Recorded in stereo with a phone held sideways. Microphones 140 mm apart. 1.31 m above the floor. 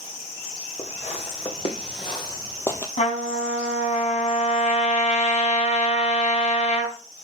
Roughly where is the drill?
I don't hear a drill.